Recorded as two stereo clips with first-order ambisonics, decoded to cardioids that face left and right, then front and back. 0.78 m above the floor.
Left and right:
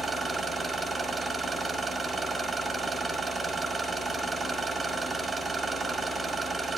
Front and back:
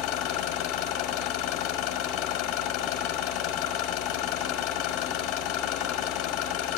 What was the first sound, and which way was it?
An engine running, 10° right.